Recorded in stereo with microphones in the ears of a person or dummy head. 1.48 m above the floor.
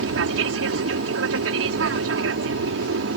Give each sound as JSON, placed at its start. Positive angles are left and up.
{"t": 0.0, "sound": "an aircraft", "side_deg": -70}